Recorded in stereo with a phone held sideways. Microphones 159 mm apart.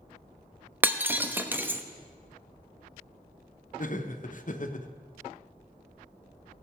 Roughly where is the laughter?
Left.